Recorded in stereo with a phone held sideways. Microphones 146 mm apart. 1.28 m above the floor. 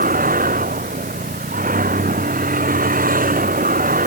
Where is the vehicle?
75° right (ahead or behind).